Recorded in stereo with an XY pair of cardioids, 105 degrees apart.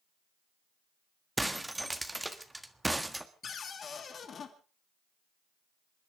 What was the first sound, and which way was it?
Breaking glass, 10° right.